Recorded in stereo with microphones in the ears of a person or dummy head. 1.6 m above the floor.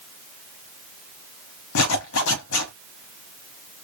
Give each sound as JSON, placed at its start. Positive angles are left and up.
{"t": 1.8, "sound": "a zipper", "side_deg": 70, "distance_m": 1.1}